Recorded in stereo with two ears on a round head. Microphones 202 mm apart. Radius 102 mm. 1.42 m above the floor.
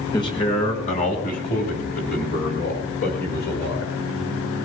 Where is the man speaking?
15° left (ahead or behind), 1.8 m; by 3.9 s 50° left (ahead or behind), 6 m.